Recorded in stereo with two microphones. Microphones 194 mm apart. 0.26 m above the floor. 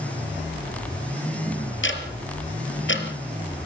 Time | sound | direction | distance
1.8 | ticking | 80° left | 4 m